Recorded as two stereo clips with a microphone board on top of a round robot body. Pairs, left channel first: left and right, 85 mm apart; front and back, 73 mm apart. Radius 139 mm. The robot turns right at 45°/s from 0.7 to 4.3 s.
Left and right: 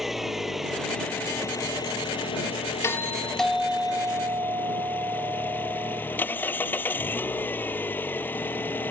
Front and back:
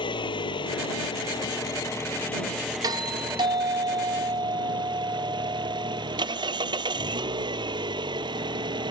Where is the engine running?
5° right; by 8.9 s 160° left.